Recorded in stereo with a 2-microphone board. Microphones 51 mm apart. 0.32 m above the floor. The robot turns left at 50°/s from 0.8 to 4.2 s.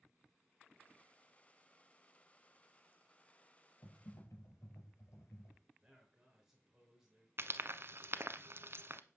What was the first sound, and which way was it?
Typing on a keyboard, 85° left.